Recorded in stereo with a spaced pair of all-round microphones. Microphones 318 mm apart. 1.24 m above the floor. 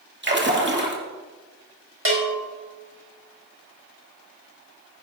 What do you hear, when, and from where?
0.2 s a splash: 35° right (ahead or behind), 2 m
2.0 s a bell: 40° right (ahead or behind), 3.5 m